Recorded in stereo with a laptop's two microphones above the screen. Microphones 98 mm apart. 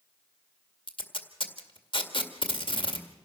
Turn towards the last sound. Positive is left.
turn(degrees=55)  # may be behind; listen again after turning